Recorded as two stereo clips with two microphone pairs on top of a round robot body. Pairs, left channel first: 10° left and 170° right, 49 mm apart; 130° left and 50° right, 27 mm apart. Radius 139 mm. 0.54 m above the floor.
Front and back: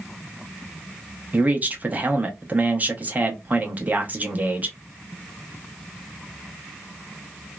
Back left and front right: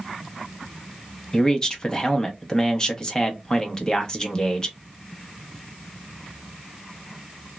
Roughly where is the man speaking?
Behind.